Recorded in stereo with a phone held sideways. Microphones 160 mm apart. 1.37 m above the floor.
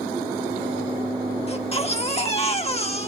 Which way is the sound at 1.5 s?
40° left (ahead or behind).